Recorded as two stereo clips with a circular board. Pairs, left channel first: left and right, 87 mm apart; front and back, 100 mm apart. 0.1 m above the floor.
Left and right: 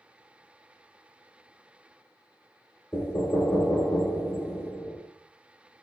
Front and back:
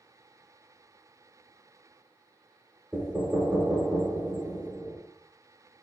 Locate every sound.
2.9 s knocking: 105° left, 0.8 m